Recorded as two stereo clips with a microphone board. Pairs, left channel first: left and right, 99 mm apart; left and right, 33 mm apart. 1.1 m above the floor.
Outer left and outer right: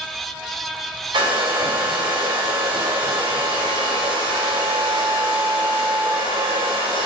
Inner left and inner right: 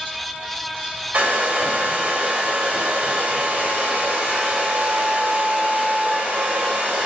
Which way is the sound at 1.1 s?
50° right (ahead or behind).